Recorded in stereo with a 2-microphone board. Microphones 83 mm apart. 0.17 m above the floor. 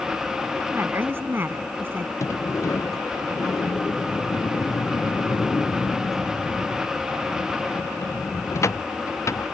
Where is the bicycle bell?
I don't hear a bicycle bell.